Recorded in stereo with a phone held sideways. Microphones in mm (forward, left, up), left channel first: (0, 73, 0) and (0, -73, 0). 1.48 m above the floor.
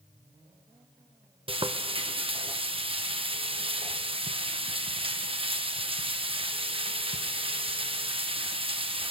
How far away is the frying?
About 0.8 m.